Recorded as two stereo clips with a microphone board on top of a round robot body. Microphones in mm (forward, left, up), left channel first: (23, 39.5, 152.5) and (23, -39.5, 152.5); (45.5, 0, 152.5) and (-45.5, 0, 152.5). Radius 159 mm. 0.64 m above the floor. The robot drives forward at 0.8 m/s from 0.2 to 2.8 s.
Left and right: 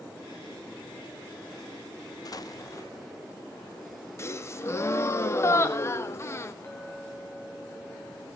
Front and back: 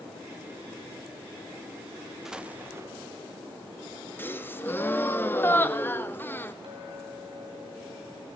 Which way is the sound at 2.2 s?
95° left.